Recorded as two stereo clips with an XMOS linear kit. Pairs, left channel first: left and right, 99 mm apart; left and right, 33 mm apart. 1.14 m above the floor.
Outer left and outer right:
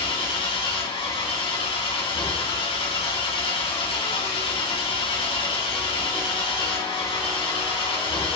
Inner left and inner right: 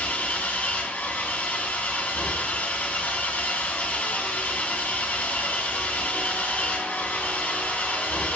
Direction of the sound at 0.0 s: 70° left (ahead or behind).